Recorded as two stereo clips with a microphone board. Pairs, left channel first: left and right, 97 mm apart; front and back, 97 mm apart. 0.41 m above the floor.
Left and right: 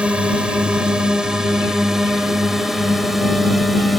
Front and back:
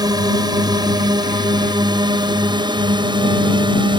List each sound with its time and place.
0.0 s a drone: 165° right; by 4.0 s straight behind